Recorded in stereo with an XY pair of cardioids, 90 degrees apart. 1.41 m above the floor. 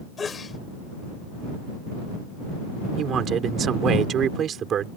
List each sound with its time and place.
0.2 s a sneeze: 40° left
3.0 s a man speaking: 65° right